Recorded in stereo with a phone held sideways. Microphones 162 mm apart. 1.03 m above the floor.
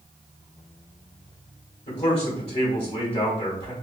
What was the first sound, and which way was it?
A man speaking, 35° left (ahead or behind).